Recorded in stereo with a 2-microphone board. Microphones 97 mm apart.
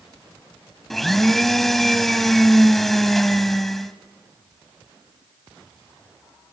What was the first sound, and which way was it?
A blender, centre (ahead or behind).